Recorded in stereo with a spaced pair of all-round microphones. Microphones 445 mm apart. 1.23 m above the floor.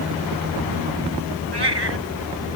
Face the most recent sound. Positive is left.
turn(degrees=-65)  # may be behind; listen again after turning